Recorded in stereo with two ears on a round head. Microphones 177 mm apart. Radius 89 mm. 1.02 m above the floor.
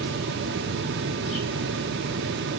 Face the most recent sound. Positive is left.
No sound to turn to.